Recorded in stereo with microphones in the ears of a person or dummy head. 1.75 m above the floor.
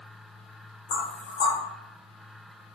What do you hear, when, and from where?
0.9 s knocking: 45° left (ahead or behind), 1.2 m